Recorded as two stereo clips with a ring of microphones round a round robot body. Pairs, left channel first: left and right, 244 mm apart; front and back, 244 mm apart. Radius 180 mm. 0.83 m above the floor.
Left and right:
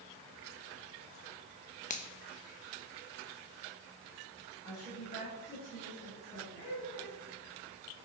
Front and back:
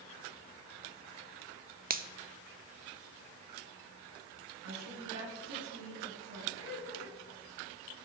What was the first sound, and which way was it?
A finger snap, 140° left.